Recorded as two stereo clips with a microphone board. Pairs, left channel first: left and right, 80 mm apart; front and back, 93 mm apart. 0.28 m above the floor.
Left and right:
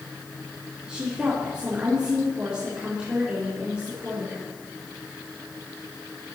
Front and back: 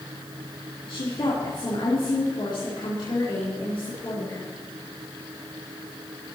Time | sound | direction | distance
0.9 | a woman speaking | 10° right | 4 m